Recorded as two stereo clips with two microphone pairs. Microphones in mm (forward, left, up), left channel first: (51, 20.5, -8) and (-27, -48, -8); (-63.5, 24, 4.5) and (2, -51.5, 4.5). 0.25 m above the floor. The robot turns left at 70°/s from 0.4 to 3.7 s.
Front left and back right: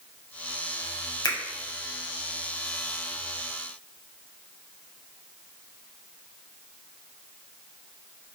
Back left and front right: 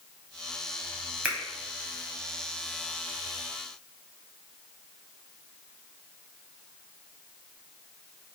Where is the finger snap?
20° left, 1.0 m; by 1.4 s 10° left, 1.0 m.